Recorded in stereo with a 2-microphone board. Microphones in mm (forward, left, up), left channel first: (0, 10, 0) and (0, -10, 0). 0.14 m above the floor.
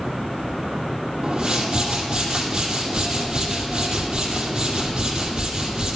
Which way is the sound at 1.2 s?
30° right (ahead or behind).